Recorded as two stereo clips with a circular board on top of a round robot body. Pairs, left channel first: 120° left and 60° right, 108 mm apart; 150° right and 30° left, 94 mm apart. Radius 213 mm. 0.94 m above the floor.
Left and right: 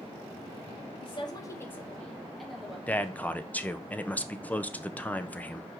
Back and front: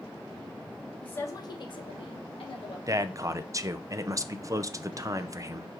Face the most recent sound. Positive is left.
turn(degrees=55)